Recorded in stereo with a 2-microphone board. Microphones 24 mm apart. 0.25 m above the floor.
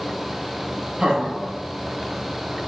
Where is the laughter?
50° right (ahead or behind), 1.4 m; by 2.7 s 5° left (ahead or behind), 0.9 m.